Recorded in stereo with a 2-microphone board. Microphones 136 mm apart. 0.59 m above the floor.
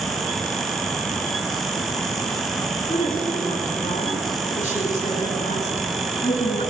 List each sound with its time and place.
2.9 s a woman speaking: 80° left, 7 m; by 6.7 s 65° left (ahead or behind), 6.5 m